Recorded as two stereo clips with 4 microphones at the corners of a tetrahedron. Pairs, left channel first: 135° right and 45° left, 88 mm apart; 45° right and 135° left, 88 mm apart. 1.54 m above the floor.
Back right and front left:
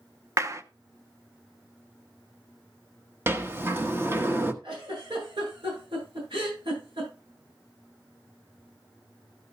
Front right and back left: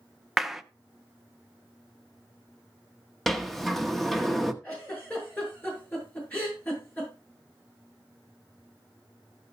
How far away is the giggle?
About 8.5 m.